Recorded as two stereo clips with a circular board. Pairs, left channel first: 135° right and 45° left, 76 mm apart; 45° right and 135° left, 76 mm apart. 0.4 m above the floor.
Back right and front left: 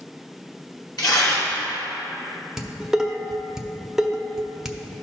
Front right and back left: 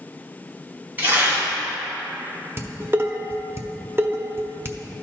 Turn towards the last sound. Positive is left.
turn(degrees=120)